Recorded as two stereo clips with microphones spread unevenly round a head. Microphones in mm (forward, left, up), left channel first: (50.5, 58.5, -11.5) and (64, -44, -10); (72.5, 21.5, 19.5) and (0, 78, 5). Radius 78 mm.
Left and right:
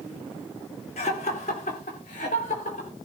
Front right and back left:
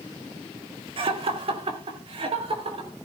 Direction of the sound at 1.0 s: 140° left.